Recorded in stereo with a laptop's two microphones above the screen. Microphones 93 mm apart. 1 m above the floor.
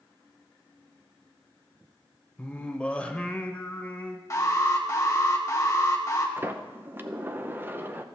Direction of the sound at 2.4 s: 15° left (ahead or behind).